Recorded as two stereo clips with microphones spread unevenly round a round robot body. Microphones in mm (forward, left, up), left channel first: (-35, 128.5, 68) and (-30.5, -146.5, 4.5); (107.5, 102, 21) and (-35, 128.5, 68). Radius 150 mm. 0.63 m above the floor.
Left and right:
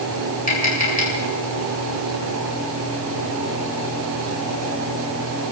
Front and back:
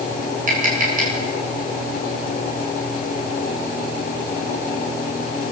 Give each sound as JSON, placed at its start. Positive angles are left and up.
{"t": 0.5, "sound": "tapping", "azimuth_deg": 150, "distance_m": 8.0}